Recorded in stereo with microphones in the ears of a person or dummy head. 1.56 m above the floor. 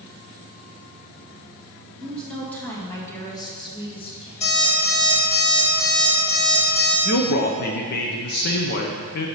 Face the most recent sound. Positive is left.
turn(degrees=45)  # may be behind; listen again after turning